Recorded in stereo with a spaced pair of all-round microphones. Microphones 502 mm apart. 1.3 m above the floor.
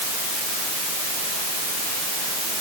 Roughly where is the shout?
I don't hear a shout.